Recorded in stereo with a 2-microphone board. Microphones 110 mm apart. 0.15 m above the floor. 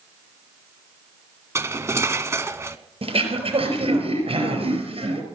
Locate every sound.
1.6 s cutlery clinking: 25° right (ahead or behind), 0.7 m
3.0 s throat clearing: 65° right (ahead or behind), 3.5 m